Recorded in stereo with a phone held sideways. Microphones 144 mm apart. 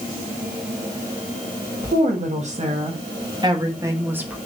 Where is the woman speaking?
60° right (ahead or behind), 1.7 m; by 4.4 s 10° right (ahead or behind), 1.4 m.